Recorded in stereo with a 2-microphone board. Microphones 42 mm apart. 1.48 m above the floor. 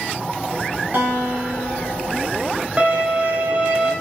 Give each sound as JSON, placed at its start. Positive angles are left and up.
{"t": 0.9, "sound": "a guitar", "side_deg": -45, "distance_m": 2.5}
{"t": 2.8, "sound": "a violin", "side_deg": -25, "distance_m": 1.3}